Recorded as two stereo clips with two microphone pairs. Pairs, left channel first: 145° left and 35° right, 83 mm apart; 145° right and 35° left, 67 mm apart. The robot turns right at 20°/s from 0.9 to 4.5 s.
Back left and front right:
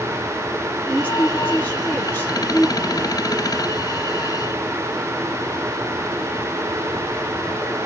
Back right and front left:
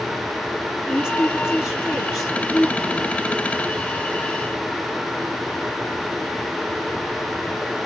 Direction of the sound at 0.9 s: 100° left.